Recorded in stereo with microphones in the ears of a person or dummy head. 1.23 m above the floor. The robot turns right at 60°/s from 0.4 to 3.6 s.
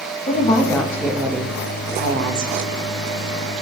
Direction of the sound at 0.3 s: 140° left.